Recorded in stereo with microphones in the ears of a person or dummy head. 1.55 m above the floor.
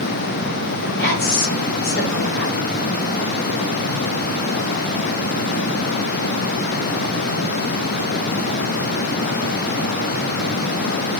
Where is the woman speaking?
20° left (ahead or behind), 1.7 m.